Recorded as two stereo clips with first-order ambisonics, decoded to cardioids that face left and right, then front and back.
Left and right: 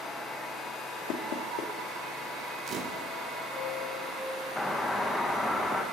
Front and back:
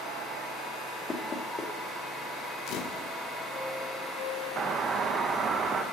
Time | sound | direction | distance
1.1 | knocking | 70° left | 1.6 m
2.7 | a camera shutter | 35° right | 1.0 m
4.6 | a doorbell | 160° left | 1.0 m